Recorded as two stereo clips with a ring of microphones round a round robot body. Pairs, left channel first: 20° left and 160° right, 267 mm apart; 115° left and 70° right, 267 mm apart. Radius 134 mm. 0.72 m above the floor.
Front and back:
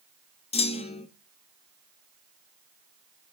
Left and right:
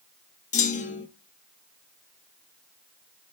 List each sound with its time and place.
0.5 s a clunk: 70° left, 0.7 m